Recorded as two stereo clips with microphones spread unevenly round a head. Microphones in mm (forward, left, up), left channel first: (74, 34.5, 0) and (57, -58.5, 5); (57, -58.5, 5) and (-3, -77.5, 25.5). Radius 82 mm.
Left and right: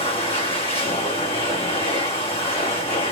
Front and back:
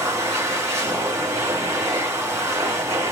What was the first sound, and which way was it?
A machine running, 135° left.